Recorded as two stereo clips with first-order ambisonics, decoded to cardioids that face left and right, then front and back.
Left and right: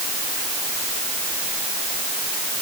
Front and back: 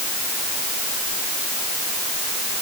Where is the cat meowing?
No cat meowing in this recording.